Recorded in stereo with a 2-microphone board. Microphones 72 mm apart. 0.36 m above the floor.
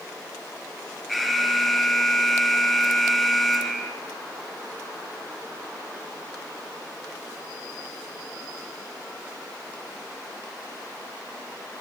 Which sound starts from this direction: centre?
An alarm, at 1.1 s.